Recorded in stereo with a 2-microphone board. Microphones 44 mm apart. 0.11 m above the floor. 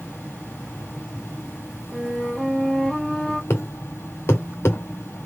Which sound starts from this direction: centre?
A flute, at 1.9 s.